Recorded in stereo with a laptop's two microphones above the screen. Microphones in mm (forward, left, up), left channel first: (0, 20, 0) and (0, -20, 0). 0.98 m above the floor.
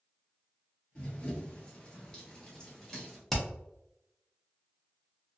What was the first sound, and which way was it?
Running footsteps, 30° left (ahead or behind).